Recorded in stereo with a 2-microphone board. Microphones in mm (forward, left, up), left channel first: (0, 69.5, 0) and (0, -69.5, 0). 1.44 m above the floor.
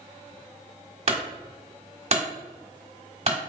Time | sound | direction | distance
1.1 | a clunk | 50° right (ahead or behind) | 1.4 m